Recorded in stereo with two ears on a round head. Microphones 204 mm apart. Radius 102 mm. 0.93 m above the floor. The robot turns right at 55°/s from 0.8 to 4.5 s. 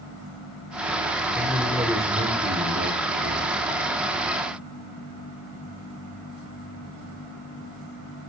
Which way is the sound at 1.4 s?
160° left.